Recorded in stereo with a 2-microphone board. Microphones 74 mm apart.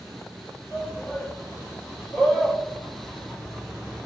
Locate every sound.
0.7 s a shout: 20° left (ahead or behind), 4 m; by 4.1 s centre (ahead or behind), 1.4 m